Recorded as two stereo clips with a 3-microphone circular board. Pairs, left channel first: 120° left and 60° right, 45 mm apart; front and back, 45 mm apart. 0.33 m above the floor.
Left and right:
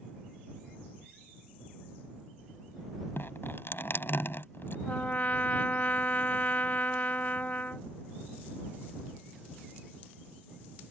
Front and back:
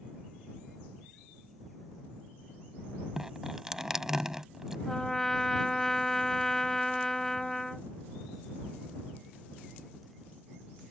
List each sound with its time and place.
3.2 s dripping: 100° left
4.9 s a trumpet: 75° left